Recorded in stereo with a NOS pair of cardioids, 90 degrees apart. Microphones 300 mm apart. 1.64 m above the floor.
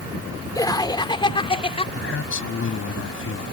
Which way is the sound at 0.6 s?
10° left.